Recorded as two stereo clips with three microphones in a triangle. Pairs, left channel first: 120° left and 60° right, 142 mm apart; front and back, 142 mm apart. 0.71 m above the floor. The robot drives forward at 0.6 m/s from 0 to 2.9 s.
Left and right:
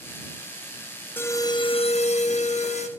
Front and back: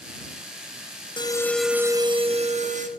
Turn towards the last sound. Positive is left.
turn(degrees=155)